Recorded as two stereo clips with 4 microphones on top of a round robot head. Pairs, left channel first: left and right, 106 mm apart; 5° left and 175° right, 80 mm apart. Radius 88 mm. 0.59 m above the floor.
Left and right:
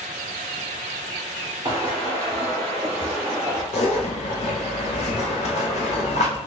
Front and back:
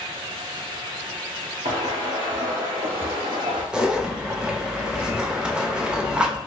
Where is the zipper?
105° left, 0.8 m.